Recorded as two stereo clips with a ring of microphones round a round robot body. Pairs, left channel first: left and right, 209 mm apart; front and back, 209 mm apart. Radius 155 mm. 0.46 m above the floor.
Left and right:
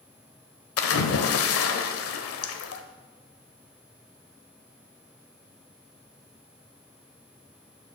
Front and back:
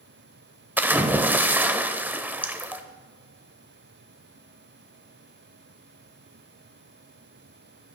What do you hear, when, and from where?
0.8 s a splash: 100° left, 0.9 m